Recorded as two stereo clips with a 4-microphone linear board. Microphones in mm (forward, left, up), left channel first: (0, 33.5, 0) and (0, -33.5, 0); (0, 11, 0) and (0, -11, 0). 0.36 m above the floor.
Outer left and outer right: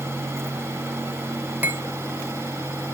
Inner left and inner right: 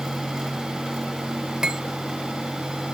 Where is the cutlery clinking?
30° right (ahead or behind), 0.7 m.